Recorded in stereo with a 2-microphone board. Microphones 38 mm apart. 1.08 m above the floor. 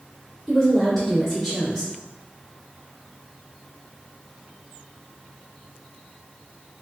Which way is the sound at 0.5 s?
10° left (ahead or behind).